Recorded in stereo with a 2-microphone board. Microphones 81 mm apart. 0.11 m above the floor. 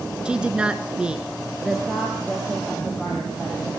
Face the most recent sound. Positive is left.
turn(degrees=-5)  # may be behind; listen again after turning